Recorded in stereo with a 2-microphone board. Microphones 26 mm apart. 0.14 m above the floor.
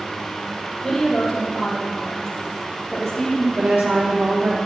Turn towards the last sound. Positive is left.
turn(degrees=-75)  # may be behind; listen again after turning